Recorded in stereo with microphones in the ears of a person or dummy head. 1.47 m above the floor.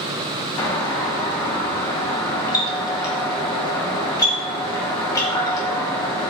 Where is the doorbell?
25° left (ahead or behind), 1.5 m.